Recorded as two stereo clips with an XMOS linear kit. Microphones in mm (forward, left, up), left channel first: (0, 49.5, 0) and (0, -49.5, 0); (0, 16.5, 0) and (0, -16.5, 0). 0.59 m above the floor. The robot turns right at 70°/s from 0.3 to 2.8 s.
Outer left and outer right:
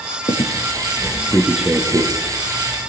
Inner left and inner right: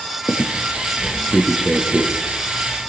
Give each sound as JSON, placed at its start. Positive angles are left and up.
{"t": 0.3, "sound": "a squeak", "side_deg": 85, "distance_m": 6.0}